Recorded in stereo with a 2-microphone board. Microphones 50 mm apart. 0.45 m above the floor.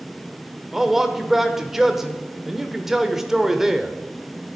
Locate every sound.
0.7 s a man speaking: 5° right (ahead or behind), 1.2 m